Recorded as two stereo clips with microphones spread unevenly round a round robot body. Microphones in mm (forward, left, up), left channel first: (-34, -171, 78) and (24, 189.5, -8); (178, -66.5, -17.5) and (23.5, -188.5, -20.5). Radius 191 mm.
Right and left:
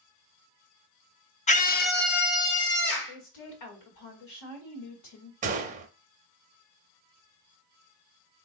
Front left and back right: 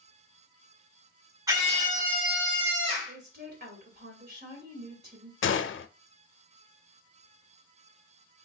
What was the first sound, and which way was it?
A scream, 175° right.